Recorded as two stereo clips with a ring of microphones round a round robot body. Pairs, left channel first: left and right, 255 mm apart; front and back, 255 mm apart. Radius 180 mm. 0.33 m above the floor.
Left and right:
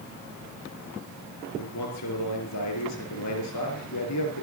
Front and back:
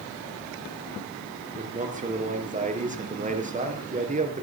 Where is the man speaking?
120° left, 5.5 m.